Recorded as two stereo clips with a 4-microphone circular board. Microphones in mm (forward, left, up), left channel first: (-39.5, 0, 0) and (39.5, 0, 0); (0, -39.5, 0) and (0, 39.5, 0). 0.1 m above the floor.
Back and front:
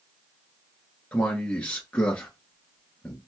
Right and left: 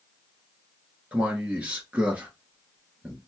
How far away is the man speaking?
About 1.1 m.